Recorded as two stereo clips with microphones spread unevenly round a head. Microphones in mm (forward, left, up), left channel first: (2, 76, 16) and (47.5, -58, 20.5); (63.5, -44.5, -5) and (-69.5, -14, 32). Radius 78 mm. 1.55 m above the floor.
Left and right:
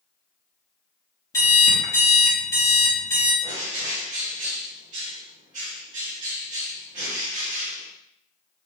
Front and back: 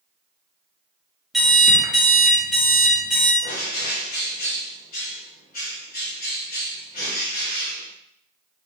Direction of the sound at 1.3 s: 135° left.